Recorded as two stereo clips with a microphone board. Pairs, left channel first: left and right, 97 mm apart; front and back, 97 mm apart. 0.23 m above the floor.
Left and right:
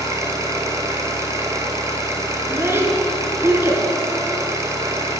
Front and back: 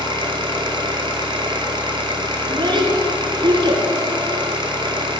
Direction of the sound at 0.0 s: 145° right.